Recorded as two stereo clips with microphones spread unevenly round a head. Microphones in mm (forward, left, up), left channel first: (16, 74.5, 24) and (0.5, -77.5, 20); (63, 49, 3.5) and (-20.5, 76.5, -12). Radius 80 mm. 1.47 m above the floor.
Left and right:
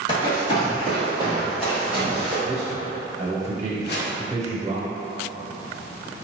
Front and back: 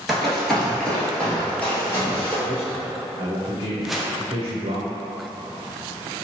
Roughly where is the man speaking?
Behind.